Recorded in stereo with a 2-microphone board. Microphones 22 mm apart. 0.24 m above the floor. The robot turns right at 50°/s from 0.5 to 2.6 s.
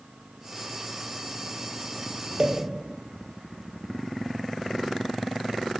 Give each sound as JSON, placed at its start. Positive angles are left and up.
{"t": 2.4, "sound": "a pop", "side_deg": -45, "distance_m": 1.1}